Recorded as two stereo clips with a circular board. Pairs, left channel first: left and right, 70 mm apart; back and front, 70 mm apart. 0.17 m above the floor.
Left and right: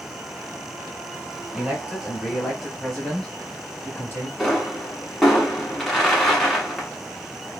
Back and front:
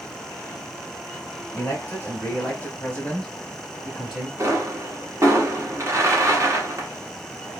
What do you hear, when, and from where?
1.5 s a man speaking: 160° right, 1.6 m; by 4.3 s 80° left, 1.4 m
4.4 s a pop: 5° left, 1.1 m